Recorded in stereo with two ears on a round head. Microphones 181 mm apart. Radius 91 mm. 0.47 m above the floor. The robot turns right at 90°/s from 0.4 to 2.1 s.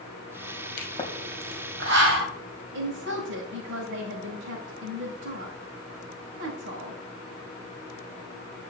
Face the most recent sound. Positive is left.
turn(degrees=-60)  # may be behind; listen again after turning